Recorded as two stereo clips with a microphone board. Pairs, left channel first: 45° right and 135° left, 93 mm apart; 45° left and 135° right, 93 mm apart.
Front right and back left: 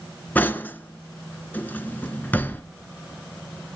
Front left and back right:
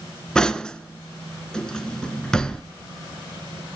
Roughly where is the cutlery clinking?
Ahead.